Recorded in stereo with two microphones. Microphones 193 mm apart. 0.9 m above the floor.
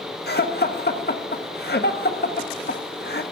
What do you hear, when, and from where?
0.3 s laughter: 60° left (ahead or behind), 1.4 m